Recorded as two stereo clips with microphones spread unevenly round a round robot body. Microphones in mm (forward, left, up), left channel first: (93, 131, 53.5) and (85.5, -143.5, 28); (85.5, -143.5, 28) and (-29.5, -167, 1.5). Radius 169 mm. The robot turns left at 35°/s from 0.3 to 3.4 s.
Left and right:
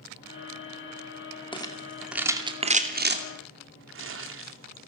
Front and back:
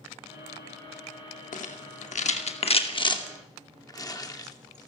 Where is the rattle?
15° left, 2.5 m; by 4.9 s 50° right, 2.5 m.